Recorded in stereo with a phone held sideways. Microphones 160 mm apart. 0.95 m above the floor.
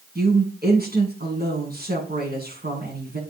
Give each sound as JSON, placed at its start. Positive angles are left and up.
{"t": 0.1, "sound": "a woman speaking", "side_deg": -75, "distance_m": 8.5}